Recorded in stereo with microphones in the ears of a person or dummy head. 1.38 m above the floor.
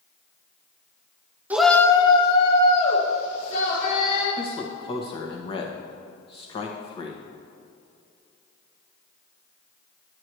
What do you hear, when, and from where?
1.5 s a shout: 10° right (ahead or behind), 0.6 m; by 4.3 s 50° left (ahead or behind), 3.5 m
4.4 s a man speaking: 30° left (ahead or behind), 1.5 m